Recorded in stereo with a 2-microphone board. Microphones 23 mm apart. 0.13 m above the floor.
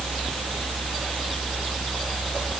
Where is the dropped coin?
I don't hear a dropped coin.